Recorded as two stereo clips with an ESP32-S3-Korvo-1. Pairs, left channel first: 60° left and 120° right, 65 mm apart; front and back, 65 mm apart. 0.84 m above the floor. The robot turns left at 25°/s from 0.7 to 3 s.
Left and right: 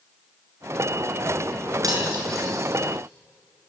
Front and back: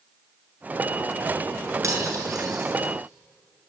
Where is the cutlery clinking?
145° right, 7 m; by 2.7 s 165° right, 7 m.